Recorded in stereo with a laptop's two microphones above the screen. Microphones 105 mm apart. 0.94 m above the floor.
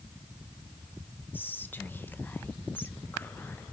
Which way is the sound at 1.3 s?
20° left (ahead or behind).